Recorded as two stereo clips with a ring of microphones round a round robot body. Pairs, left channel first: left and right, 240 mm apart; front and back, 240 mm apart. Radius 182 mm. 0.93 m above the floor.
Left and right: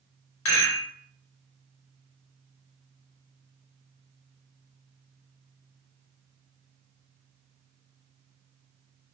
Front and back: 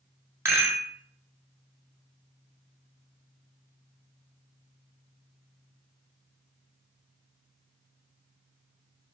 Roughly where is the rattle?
Left.